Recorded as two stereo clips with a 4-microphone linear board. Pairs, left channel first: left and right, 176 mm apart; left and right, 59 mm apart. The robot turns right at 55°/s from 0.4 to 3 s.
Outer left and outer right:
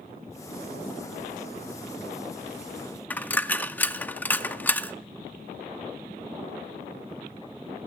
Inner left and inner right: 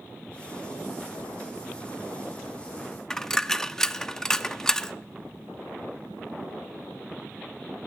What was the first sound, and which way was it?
A dropped coin, 10° left (ahead or behind).